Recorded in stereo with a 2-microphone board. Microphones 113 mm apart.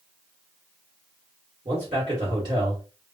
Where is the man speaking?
50° right (ahead or behind), 1.7 m.